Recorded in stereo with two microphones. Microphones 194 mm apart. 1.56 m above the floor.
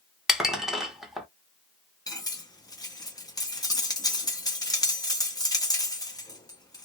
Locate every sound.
0.3 s dishes clattering: centre (ahead or behind), 0.9 m
2.1 s cutlery clinking: 20° left (ahead or behind), 0.9 m